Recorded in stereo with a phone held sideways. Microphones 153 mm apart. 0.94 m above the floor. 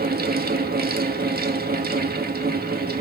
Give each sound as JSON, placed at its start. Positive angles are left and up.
{"t": 0.0, "sound": "a fan", "side_deg": -85, "distance_m": 0.9}